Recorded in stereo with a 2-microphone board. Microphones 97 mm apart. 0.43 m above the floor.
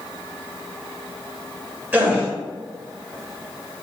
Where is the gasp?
20° right (ahead or behind), 1.7 m.